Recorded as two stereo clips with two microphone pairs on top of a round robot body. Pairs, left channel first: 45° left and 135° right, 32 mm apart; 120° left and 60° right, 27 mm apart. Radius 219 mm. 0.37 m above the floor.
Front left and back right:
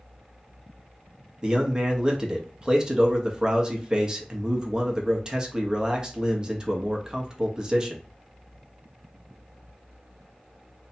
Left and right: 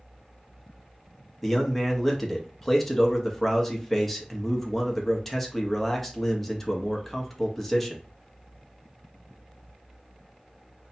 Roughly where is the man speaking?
Behind right.